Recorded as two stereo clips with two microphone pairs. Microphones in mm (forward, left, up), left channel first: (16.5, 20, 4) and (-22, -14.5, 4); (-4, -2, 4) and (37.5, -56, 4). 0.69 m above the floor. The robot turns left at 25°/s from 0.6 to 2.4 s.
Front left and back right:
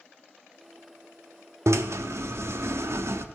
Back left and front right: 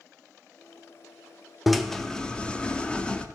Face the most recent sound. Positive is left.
turn(degrees=-160)